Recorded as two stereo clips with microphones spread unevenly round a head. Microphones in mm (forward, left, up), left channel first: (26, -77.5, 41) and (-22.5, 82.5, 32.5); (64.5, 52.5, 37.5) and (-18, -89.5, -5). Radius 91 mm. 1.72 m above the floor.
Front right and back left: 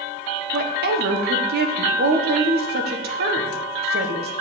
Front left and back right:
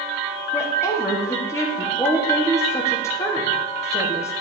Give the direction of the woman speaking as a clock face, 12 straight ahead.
7 o'clock.